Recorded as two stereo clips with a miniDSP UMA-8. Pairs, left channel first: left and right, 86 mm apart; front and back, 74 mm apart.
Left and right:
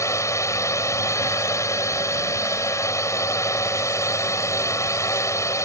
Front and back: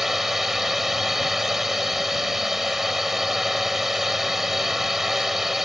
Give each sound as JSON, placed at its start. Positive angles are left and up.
{"t": 0.0, "sound": "a drone", "azimuth_deg": 95}